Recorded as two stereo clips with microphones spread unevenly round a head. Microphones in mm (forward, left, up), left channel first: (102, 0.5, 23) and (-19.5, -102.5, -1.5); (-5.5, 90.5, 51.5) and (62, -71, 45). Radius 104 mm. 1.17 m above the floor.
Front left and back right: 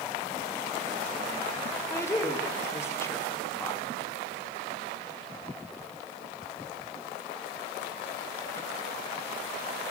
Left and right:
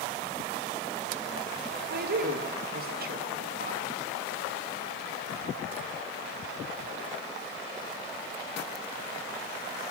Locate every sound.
1.9 s a woman speaking: 35° right, 1.7 m